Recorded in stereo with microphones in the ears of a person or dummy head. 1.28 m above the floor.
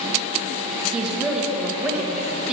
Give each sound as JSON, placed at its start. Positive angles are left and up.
{"t": 0.9, "sound": "a woman speaking", "side_deg": 0, "distance_m": 1.5}